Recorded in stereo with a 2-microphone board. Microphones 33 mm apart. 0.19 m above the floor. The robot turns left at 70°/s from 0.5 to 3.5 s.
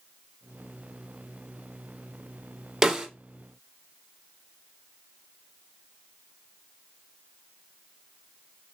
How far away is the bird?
I don't hear a bird.